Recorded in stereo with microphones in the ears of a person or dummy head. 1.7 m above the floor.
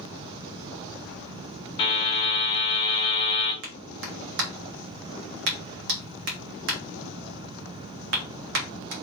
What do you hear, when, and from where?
1.8 s a buzzer: 30° left (ahead or behind), 1.7 m
3.6 s a clap: 60° right (ahead or behind), 1.3 m